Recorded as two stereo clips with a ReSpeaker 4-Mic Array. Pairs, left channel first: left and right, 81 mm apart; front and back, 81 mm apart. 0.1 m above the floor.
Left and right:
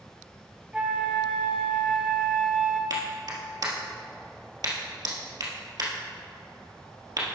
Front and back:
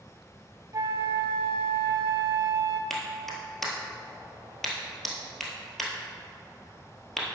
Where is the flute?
165° right, 0.9 m.